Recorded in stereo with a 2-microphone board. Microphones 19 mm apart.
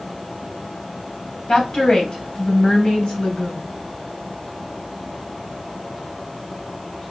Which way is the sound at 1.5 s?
55° left (ahead or behind).